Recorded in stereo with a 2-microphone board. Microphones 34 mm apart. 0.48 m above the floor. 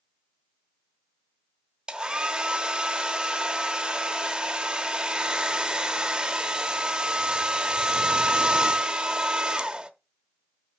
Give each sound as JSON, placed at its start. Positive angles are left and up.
{"t": 1.9, "sound": "a hair dryer", "side_deg": -25, "distance_m": 0.7}